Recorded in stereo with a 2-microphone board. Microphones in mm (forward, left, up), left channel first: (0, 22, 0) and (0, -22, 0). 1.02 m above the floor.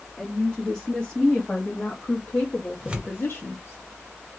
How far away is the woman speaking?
About 2.5 m.